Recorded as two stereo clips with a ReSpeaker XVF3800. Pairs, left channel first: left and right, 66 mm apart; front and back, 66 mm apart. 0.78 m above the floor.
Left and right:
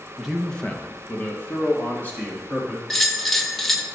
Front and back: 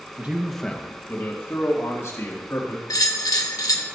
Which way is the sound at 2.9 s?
5° left.